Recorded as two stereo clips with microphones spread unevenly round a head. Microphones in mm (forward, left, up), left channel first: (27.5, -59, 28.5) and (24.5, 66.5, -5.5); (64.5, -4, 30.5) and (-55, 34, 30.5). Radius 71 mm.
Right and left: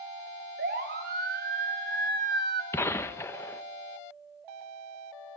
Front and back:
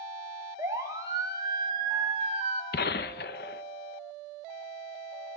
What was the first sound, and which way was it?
A siren, 95° left.